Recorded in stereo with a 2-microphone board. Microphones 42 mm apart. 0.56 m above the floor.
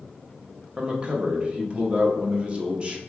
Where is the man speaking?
25° right (ahead or behind), 0.7 m.